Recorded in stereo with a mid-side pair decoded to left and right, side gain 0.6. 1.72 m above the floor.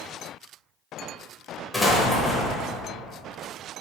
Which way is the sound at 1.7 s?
10° left.